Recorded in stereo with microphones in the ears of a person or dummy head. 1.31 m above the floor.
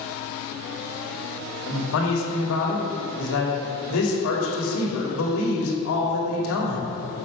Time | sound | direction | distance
1.7 | a man speaking | 75° left (ahead or behind) | 2.5 m